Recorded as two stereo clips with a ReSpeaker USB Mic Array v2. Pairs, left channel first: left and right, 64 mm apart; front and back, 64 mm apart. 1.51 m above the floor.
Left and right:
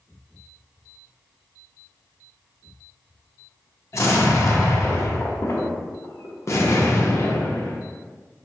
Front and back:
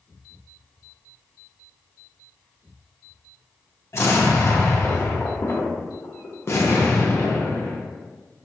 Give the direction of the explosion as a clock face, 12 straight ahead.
10 o'clock.